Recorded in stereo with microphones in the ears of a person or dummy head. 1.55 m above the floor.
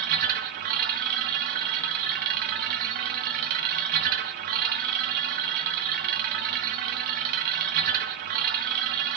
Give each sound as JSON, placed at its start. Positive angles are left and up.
{"t": 0.0, "sound": "a machine running", "side_deg": -50, "distance_m": 1.1}